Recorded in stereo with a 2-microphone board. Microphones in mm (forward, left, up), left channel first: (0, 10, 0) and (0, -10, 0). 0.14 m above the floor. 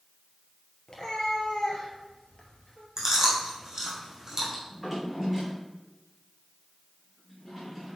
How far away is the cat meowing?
About 1.6 m.